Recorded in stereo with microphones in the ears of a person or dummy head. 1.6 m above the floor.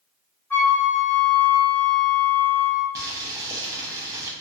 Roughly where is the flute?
Centre.